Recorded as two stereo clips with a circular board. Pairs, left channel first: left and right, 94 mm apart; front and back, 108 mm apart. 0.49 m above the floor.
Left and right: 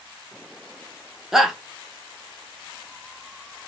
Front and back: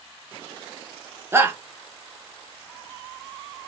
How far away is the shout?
About 0.7 m.